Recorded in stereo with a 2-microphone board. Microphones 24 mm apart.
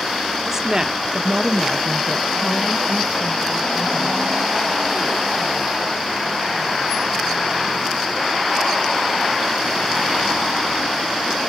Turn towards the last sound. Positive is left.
turn(degrees=-20)  # may be behind; listen again after turning